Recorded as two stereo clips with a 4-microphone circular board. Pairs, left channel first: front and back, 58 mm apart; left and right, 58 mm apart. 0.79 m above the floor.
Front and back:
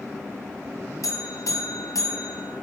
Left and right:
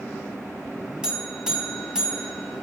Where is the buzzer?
10° right, 1.9 m.